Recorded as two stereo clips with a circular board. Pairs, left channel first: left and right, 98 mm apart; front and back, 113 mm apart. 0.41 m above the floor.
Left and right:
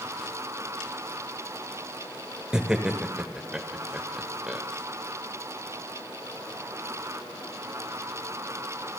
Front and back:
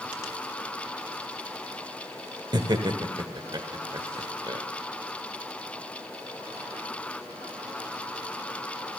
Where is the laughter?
170° right, 1.1 m.